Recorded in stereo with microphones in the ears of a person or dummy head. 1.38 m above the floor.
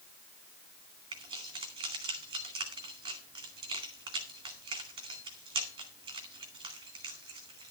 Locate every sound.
1.1 s keys jangling: 25° right (ahead or behind), 2 m